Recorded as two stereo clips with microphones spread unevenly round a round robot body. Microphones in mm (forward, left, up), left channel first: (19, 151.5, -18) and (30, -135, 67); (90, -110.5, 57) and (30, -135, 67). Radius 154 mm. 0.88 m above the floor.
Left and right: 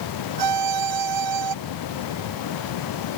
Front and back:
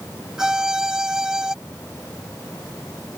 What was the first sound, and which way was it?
A violin, 80° right.